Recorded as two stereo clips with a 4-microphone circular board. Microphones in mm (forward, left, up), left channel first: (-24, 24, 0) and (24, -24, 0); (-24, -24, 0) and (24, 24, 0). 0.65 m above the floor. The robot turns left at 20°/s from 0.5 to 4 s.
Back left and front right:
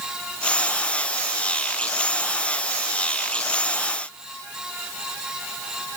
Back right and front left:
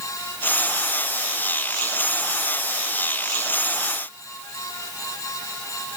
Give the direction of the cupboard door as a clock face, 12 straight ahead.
I don't hear a cupboard door.